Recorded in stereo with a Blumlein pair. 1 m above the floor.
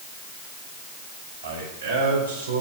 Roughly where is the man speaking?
Ahead right.